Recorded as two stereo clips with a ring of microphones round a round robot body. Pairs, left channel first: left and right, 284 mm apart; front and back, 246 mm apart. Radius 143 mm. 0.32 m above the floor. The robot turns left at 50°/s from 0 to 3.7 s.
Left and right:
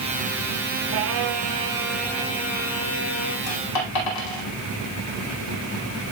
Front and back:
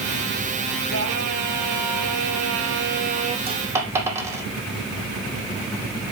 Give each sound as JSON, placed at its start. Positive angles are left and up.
{"t": 0.9, "sound": "singing", "azimuth_deg": -130, "distance_m": 1.4}
{"t": 3.5, "sound": "a dropped coin", "azimuth_deg": 115, "distance_m": 4.5}